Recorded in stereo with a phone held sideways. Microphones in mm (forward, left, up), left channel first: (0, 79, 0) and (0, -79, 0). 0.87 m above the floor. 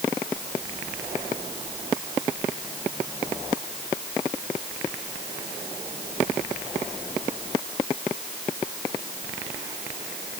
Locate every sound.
Only background noise.